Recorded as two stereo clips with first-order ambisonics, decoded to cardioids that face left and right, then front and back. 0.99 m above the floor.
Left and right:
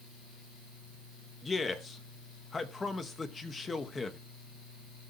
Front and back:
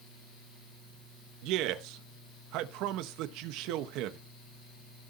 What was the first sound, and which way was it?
A man speaking, 160° left.